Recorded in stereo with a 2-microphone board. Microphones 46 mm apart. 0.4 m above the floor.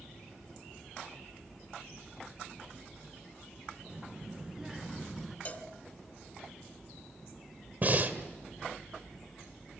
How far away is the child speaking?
About 3.5 m.